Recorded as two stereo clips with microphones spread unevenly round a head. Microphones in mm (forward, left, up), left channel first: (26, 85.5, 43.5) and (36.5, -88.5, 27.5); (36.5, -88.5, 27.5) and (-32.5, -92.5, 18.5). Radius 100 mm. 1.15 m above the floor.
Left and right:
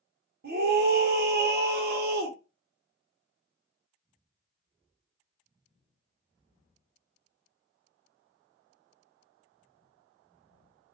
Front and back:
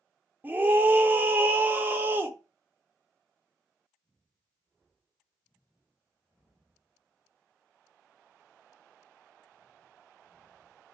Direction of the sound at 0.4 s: 115° right.